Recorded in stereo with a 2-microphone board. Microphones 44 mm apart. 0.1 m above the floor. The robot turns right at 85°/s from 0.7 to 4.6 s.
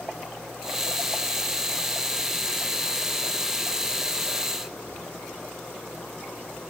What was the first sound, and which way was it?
Only background noise.